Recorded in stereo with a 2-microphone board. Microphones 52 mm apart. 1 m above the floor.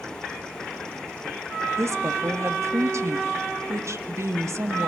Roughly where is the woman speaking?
Right.